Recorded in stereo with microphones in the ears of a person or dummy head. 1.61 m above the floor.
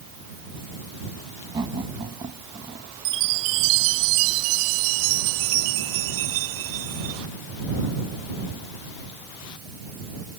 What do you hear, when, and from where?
1.5 s laughter: 20° right (ahead or behind); by 2.9 s 25° right (ahead or behind)
3.0 s a chime: 65° right (ahead or behind)